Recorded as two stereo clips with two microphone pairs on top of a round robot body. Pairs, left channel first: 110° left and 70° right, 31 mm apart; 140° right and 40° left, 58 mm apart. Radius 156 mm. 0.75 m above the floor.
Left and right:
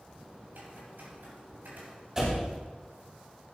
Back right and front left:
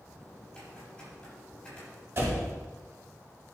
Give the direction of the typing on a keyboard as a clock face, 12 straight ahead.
2 o'clock.